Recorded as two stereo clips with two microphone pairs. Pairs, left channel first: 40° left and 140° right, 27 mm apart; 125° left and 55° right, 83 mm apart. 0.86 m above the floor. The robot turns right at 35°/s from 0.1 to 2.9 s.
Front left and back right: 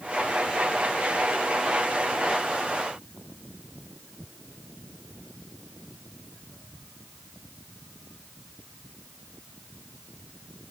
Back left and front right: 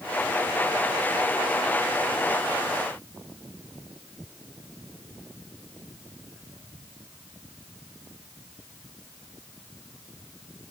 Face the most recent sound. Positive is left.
No sound to turn to.